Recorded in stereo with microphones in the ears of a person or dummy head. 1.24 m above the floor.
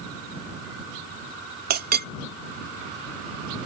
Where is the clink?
45° right (ahead or behind).